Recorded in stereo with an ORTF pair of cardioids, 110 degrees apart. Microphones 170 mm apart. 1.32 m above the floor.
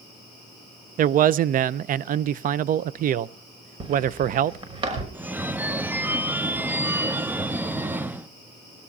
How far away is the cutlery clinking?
I don't hear cutlery clinking.